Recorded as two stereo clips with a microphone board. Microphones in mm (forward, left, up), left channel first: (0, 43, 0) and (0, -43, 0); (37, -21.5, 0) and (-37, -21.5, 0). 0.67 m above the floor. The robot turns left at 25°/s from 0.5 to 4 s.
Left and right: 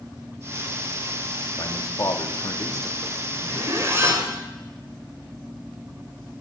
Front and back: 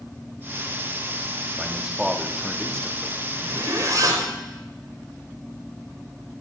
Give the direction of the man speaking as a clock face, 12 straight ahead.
8 o'clock.